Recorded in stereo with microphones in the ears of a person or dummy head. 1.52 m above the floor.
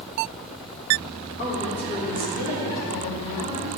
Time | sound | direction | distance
1.4 | a woman speaking | 45° left (ahead or behind) | 3.5 m